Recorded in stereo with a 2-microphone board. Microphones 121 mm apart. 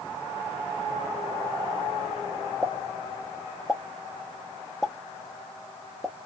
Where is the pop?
Centre (ahead or behind), 0.9 m.